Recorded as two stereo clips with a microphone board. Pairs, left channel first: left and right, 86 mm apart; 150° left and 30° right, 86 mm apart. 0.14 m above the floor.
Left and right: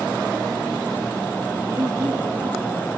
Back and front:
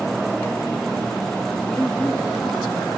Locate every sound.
1.7 s a woman speaking: 135° right, 2.5 m; by 2.9 s 125° right, 3 m